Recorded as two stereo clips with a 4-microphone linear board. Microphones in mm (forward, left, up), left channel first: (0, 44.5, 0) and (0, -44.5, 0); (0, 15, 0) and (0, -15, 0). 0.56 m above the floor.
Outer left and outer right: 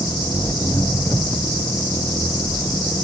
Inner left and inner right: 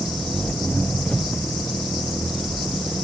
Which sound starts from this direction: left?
An engine running, at 0.0 s.